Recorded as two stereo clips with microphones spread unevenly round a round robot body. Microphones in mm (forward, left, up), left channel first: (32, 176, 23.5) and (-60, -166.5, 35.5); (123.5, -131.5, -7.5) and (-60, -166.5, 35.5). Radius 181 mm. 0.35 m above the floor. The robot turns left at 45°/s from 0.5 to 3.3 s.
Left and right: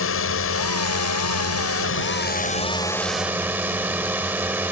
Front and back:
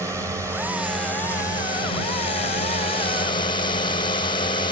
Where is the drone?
105° left; by 4.7 s 20° right.